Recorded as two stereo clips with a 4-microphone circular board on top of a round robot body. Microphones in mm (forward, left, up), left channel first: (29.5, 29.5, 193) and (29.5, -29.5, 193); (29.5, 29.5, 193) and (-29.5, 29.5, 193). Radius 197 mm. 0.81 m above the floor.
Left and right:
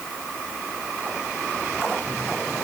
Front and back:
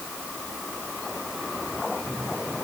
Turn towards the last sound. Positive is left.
No sound to turn to.